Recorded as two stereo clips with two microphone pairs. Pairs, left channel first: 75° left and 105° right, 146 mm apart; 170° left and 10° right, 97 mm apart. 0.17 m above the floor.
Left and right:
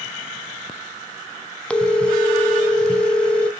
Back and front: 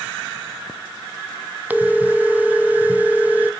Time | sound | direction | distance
1.7 | a phone ringing | 10° left | 0.6 m